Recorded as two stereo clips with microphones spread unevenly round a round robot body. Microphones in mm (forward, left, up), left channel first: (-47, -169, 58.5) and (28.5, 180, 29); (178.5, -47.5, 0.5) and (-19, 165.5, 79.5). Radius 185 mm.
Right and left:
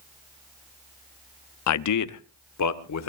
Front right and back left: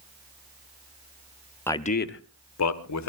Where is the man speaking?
105° right, 0.7 m; by 3.1 s 55° right, 1.8 m.